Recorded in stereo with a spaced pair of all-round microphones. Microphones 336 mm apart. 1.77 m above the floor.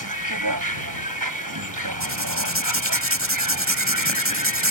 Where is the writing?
40° right (ahead or behind).